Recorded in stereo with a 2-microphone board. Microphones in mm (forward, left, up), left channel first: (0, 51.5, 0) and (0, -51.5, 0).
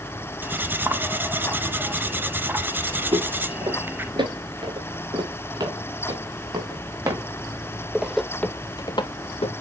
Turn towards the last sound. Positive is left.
turn(degrees=75)  # may be behind; listen again after turning